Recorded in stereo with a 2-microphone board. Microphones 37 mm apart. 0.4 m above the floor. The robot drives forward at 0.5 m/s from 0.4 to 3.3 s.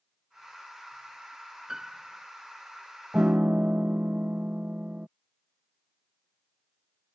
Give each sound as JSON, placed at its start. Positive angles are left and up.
{"t": 1.7, "sound": "a piano", "side_deg": -15}
{"t": 3.1, "sound": "a piano", "side_deg": -40}